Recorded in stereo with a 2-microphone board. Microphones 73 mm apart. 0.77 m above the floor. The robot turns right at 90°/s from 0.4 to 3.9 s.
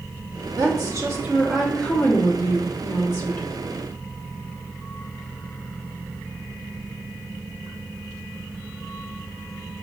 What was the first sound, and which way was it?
A woman speaking, 100° right.